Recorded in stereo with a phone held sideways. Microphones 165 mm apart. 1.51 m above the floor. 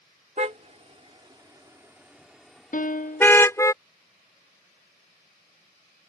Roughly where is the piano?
Left.